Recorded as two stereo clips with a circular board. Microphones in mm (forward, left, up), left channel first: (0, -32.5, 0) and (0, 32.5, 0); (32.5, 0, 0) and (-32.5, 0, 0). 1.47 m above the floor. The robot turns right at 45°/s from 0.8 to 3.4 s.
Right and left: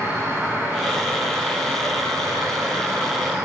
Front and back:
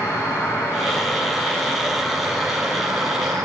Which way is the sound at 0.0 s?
35° left.